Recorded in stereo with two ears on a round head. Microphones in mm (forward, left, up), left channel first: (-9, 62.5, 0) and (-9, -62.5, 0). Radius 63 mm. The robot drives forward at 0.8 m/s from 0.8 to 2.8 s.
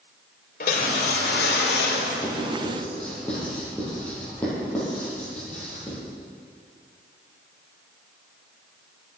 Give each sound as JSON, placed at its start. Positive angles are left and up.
{"t": 0.6, "sound": "a whoosh", "side_deg": 65, "distance_m": 3.0}
{"t": 2.2, "sound": "writing", "side_deg": 10, "distance_m": 8.5}